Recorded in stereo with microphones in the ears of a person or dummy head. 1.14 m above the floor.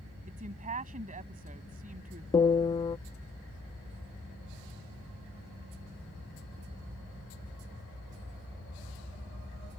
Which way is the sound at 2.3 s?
25° left (ahead or behind).